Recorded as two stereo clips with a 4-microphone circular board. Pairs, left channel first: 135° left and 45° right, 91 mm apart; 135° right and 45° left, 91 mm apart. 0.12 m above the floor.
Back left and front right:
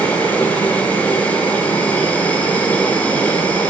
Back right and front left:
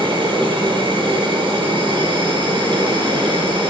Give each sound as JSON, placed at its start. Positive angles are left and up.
{"t": 0.0, "sound": "an insect", "azimuth_deg": 65, "distance_m": 5.5}